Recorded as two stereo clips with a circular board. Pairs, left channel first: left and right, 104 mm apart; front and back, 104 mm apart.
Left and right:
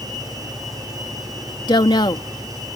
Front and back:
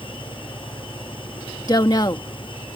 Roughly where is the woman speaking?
Ahead left.